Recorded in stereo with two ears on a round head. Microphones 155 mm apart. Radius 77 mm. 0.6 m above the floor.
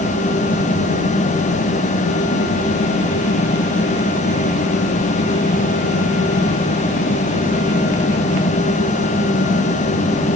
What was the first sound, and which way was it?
Only background noise.